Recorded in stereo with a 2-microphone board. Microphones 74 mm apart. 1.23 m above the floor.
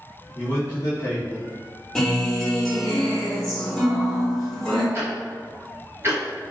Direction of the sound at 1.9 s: Centre (ahead or behind).